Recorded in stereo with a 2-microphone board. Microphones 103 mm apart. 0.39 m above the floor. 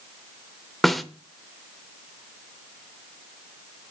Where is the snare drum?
Centre (ahead or behind), 0.8 m.